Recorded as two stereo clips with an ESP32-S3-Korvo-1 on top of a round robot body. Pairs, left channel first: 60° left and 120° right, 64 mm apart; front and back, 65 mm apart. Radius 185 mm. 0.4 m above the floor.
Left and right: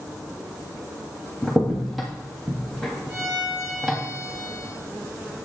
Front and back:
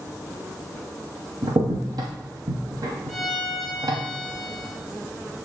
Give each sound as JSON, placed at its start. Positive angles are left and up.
{"t": 1.4, "sound": "a crack", "azimuth_deg": 150, "distance_m": 0.5}
{"t": 3.1, "sound": "a violin", "azimuth_deg": -85, "distance_m": 1.5}